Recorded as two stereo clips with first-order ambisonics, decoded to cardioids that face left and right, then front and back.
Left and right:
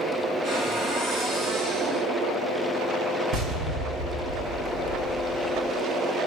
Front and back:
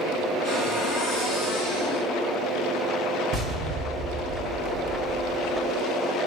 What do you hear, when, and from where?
0.4 s a cupboard door: 20° right, 2 m
3.3 s an explosion: 125° right, 1.3 m